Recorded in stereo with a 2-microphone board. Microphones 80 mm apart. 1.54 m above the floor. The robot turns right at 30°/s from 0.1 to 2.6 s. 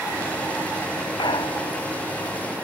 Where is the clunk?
80° left.